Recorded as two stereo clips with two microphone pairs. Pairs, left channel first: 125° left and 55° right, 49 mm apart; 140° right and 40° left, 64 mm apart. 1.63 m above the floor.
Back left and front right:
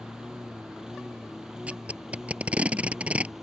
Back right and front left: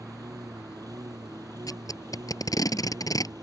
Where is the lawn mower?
25° left; by 3.4 s 30° left.